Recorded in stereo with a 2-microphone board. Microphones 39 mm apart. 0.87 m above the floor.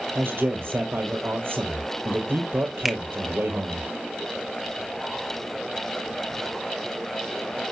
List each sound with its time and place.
0.1 s a man speaking: 75° right (ahead or behind), 4 m
2.9 s a finger snap: 5° right (ahead or behind), 1.1 m